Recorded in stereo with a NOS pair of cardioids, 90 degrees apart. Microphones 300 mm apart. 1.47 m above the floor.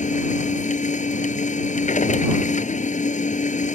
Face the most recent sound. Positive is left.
turn(degrees=25)